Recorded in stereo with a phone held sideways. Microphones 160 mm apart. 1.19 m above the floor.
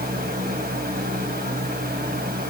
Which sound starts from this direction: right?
A fan, at 0.0 s.